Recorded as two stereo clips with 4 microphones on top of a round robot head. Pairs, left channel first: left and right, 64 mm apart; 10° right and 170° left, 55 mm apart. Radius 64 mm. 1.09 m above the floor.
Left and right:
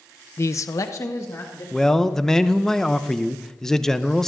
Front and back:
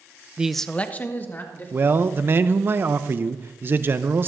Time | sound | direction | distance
0.4 | a man speaking | 110° left | 0.5 m
1.7 | a man speaking | 170° left | 0.6 m